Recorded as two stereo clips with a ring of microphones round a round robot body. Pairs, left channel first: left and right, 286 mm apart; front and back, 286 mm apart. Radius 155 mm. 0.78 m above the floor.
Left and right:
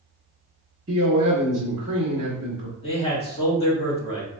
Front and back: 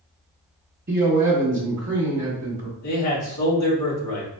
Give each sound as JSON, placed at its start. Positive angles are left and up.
{"t": 0.9, "sound": "a man speaking", "azimuth_deg": -135, "distance_m": 1.3}
{"t": 2.8, "sound": "a man speaking", "azimuth_deg": 25, "distance_m": 1.8}